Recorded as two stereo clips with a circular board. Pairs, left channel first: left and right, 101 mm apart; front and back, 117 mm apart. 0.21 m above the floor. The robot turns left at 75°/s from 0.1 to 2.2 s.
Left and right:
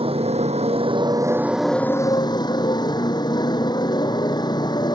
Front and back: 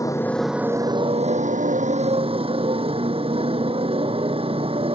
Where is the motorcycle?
65° right; by 5.0 s 140° left.